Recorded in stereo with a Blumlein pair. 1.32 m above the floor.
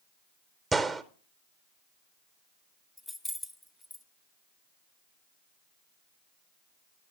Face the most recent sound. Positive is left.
turn(degrees=5)